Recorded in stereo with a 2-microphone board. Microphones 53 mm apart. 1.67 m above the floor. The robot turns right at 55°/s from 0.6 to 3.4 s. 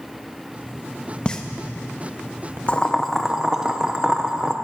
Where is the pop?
20° left (ahead or behind), 1.5 m; by 2.6 s 45° right (ahead or behind), 1.5 m.